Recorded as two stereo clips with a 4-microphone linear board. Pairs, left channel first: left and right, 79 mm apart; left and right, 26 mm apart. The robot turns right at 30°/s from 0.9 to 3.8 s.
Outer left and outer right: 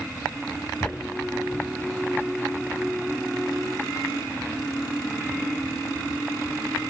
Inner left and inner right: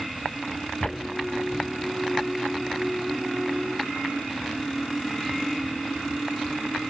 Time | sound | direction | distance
0.8 | footsteps | 25° left (ahead or behind) | 0.5 m